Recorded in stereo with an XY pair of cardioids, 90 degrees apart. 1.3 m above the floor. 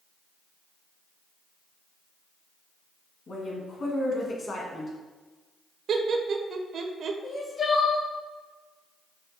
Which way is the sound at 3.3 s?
55° left.